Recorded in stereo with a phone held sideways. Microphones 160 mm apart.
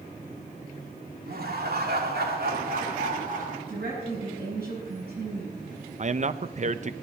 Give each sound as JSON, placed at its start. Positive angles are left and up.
{"t": 1.3, "sound": "laughter", "side_deg": -70, "distance_m": 2.5}
{"t": 3.7, "sound": "a woman speaking", "side_deg": -85, "distance_m": 7.5}
{"t": 6.0, "sound": "a man speaking", "side_deg": -50, "distance_m": 0.6}